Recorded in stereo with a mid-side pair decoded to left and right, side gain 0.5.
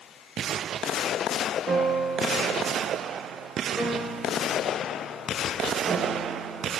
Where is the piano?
30° right, 3 m.